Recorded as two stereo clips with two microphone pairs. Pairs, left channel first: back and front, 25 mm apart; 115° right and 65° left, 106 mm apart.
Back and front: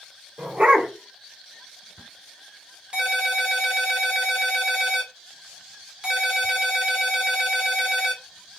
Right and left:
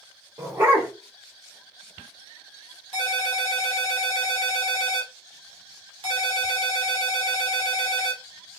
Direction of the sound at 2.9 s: 40° left.